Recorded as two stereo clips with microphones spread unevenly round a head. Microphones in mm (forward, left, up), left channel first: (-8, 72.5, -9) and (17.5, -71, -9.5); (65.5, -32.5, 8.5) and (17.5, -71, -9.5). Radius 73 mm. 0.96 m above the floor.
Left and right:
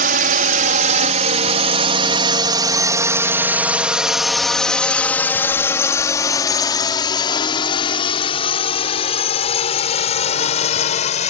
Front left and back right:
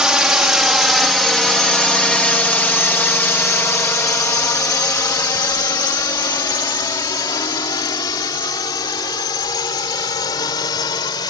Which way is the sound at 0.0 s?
65° right.